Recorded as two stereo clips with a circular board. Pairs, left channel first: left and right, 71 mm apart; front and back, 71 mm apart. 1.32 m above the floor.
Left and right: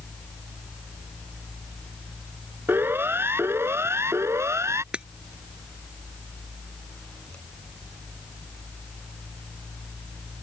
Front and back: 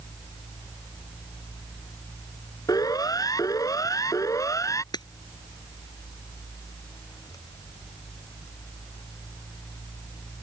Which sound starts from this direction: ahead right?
A siren, at 2.7 s.